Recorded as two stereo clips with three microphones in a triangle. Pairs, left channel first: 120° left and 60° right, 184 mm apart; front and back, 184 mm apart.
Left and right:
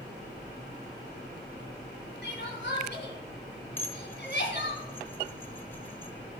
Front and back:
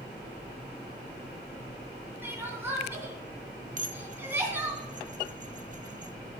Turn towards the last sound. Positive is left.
turn(degrees=-165)